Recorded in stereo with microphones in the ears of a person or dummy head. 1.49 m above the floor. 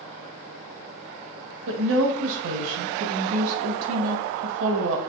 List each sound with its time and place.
1.7 s a woman speaking: 75° right (ahead or behind), 0.9 m